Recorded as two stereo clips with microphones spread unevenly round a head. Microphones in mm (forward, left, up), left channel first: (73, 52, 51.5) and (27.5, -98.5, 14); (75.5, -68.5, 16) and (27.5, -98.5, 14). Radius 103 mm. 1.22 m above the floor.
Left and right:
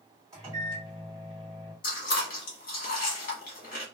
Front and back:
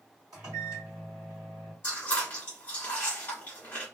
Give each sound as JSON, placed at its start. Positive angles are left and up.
{"t": 0.3, "sound": "a microwave", "azimuth_deg": 180, "distance_m": 1.5}
{"t": 1.8, "sound": "chewing", "azimuth_deg": 90, "distance_m": 1.0}